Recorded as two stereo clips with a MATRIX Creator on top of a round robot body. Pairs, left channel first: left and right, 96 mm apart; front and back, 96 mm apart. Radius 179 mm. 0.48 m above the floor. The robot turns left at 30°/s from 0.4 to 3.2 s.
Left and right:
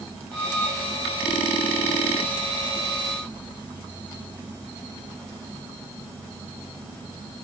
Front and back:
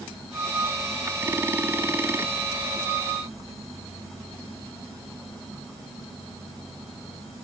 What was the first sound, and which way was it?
Only background noise.